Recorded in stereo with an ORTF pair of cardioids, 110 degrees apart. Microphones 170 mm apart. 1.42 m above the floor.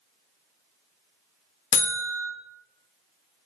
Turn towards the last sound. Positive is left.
turn(degrees=45)